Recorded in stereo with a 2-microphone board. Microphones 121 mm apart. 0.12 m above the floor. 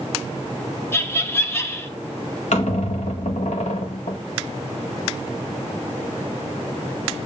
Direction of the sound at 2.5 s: 70° left (ahead or behind).